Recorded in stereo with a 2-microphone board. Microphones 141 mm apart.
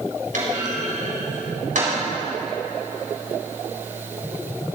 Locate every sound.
0.3 s a clunk: 75° right (ahead or behind), 4.5 m